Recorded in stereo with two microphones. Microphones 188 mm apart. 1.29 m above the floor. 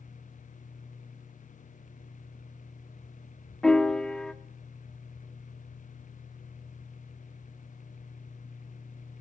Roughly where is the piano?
Centre.